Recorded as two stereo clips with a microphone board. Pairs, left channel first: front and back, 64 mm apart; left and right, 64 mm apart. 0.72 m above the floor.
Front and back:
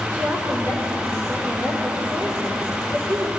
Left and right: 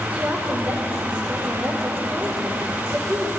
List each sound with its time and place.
0.1 s a woman speaking: 145° right, 2.5 m